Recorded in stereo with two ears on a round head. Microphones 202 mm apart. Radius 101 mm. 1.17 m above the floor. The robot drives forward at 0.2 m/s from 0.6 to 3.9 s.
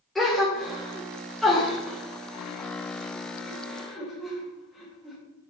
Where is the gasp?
Centre (ahead or behind), 2.0 m.